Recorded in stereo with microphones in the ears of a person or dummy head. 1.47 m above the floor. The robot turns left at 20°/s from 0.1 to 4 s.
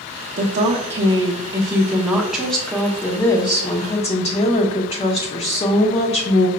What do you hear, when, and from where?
0.4 s a woman speaking: 140° right, 0.8 m; by 6.5 s 150° left, 0.8 m